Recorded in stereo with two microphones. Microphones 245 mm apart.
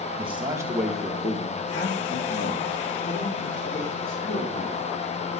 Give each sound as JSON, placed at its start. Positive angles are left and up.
{"t": 0.2, "sound": "a man speaking", "side_deg": -25, "distance_m": 1.3}